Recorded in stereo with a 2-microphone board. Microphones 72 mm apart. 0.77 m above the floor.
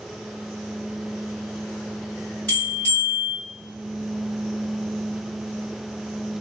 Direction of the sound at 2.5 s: 25° left (ahead or behind).